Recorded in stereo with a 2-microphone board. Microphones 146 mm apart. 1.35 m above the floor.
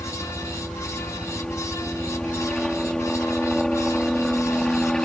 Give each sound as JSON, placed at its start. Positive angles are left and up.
{"t": 0.0, "sound": "a helicopter", "side_deg": 5}